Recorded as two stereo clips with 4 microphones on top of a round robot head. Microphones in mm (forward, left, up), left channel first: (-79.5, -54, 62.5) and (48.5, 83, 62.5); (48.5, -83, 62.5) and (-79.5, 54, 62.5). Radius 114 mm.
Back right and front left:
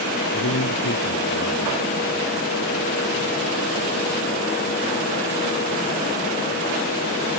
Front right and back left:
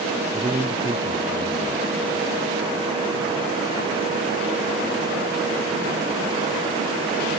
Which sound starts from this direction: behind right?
A man speaking, at 0.3 s.